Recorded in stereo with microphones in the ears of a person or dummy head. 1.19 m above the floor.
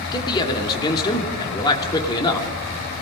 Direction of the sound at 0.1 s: 20° left (ahead or behind).